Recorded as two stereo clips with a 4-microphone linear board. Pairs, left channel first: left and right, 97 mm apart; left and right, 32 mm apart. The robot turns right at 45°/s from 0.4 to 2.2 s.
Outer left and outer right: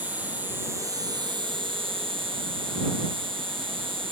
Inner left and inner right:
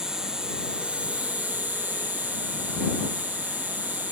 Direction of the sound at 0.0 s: 160° right.